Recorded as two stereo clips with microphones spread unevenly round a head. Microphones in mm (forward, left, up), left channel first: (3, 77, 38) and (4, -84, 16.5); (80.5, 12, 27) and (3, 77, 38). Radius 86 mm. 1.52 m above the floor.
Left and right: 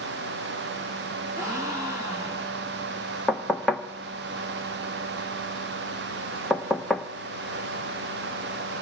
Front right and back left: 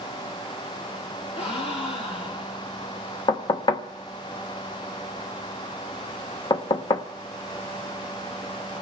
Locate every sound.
1.4 s a gasp: 15° right, 2 m
3.3 s knocking: 5° left, 1.0 m